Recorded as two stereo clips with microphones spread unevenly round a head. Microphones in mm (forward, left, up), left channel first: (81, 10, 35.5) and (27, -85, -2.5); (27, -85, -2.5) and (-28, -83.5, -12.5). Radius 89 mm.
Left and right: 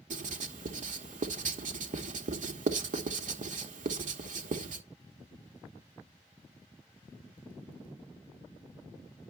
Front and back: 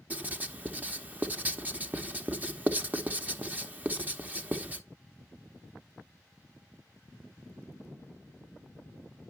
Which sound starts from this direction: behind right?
Writing, at 0.1 s.